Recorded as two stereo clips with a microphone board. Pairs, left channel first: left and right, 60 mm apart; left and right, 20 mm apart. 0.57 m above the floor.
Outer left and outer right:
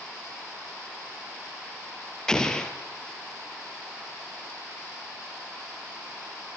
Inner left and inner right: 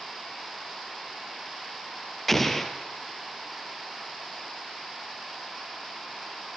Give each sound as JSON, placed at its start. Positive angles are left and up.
{"t": 2.3, "sound": "an explosion", "side_deg": 10, "distance_m": 2.5}